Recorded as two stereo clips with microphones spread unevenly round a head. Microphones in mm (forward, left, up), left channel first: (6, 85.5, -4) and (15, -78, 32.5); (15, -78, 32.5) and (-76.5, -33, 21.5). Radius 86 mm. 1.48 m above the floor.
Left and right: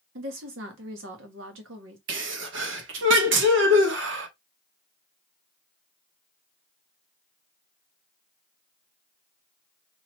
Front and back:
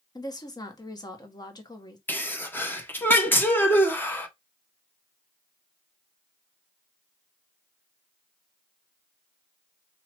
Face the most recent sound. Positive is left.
turn(degrees=-95)